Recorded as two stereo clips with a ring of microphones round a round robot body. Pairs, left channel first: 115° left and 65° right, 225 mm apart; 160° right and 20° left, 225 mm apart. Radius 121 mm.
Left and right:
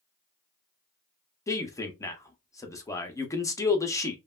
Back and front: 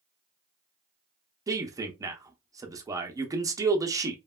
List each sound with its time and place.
1.5 s a man speaking: 65° left, 0.6 m